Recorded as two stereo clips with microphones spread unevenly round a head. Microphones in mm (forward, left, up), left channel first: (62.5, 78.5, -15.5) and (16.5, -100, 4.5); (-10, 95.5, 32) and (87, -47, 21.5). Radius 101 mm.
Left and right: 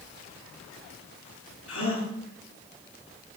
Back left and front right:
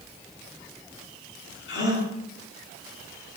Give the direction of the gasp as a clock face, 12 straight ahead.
9 o'clock.